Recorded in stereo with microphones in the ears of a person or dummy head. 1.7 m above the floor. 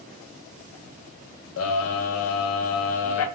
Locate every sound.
1.6 s a scream: 80° left, 0.5 m